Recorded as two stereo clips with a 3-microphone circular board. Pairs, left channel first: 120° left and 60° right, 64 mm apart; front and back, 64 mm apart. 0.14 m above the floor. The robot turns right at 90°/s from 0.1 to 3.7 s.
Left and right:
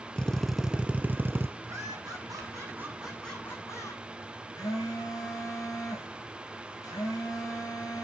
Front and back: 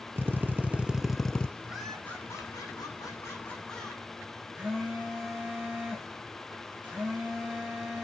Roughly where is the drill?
Behind.